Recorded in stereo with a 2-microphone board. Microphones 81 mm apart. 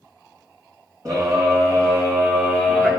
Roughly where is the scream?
Right.